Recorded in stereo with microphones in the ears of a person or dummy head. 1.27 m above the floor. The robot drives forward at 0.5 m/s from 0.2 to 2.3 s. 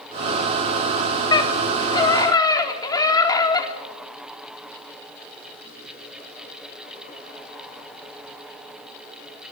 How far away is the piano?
No piano in this recording.